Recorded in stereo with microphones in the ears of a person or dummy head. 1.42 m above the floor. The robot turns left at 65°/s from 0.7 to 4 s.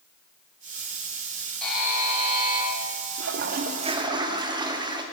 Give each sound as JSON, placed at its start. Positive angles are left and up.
{"t": 1.6, "sound": "a buzzer", "azimuth_deg": 5, "distance_m": 2.0}
{"t": 3.2, "sound": "a toilet flushing", "azimuth_deg": -105, "distance_m": 0.6}